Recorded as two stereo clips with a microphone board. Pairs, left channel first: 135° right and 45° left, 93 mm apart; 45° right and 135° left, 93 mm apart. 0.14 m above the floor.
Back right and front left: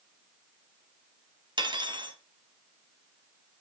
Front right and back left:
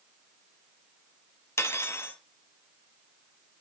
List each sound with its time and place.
1.6 s cutlery clinking: 15° left, 1.8 m